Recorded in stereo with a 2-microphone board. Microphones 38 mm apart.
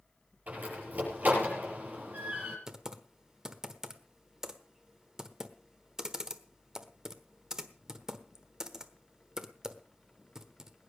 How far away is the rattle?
I don't hear a rattle.